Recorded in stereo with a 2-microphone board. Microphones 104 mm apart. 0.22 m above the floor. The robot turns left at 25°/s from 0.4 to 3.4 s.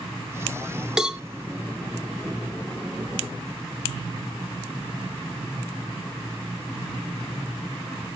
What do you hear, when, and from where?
1.0 s a cowbell: 5° right (ahead or behind), 0.6 m; by 1.2 s 10° right (ahead or behind), 0.6 m